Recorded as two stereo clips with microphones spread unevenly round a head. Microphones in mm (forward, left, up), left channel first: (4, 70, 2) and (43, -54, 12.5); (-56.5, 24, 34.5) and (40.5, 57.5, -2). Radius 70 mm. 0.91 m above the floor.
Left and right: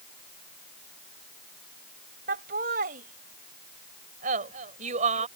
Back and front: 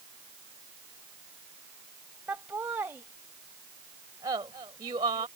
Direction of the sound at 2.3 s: 65° right.